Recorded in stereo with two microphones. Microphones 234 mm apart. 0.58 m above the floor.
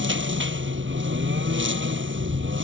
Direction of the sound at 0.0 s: 55° right (ahead or behind).